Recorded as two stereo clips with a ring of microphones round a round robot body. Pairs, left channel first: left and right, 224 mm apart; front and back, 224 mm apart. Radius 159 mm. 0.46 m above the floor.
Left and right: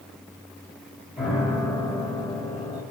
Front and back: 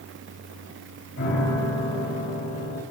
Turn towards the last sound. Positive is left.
turn(degrees=-5)